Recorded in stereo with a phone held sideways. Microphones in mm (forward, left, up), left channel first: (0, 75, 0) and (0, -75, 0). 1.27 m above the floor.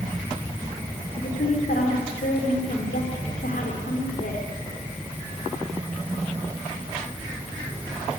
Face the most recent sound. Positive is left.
turn(degrees=90)